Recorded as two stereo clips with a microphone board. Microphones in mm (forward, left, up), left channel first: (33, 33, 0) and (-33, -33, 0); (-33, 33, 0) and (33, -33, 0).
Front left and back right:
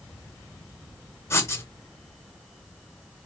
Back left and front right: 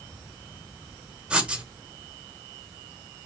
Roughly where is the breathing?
I don't hear breathing.